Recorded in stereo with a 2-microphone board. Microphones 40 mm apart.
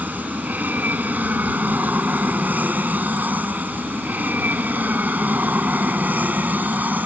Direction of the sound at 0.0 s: 45° right (ahead or behind).